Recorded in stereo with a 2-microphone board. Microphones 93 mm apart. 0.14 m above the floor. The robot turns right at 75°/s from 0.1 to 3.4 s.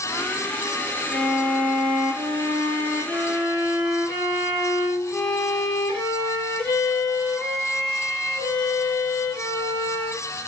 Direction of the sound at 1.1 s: 165° right.